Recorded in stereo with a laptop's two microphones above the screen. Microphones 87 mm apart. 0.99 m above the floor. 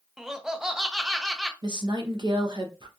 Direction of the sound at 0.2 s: 5° right (ahead or behind).